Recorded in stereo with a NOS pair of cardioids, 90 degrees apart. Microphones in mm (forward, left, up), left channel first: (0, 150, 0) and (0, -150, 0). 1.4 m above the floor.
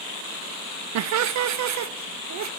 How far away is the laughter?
About 0.7 m.